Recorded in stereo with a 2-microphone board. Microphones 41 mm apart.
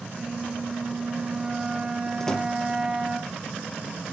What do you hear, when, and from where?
0.1 s a flute: 25° right (ahead or behind), 2.5 m
2.2 s a door slam: 15° left (ahead or behind), 4 m